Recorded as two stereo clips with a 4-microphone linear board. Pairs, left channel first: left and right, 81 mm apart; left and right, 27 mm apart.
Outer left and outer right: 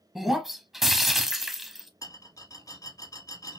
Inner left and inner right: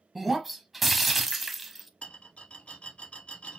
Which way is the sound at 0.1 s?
Centre (ahead or behind).